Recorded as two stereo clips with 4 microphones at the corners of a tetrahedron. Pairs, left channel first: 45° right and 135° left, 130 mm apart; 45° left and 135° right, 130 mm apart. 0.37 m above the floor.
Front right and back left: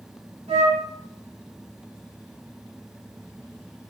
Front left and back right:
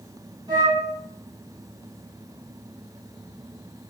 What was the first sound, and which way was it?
A flute, 170° left.